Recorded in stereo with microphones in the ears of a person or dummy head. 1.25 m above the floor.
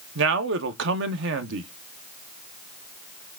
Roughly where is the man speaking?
Right.